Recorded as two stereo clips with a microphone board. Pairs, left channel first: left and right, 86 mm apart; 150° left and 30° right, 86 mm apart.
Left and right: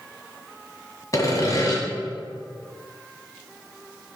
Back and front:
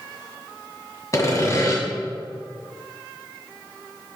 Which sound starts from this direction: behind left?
Sawing, at 1.1 s.